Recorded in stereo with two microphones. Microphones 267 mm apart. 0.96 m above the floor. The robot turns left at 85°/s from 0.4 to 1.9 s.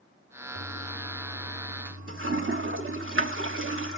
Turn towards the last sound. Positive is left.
turn(degrees=-50)  # may be behind; listen again after turning